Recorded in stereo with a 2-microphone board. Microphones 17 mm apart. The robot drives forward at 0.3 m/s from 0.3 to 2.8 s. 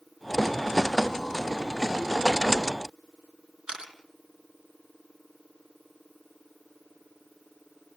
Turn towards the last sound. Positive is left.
turn(degrees=-75)  # may be behind; listen again after turning